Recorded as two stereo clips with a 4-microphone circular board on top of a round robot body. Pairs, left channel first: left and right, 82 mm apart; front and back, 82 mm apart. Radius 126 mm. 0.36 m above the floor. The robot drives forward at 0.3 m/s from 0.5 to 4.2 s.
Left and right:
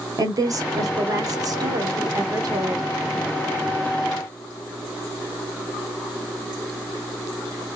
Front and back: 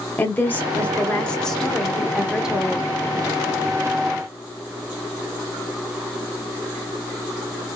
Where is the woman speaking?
65° right, 1.3 m; by 2.9 s 105° right, 1.2 m.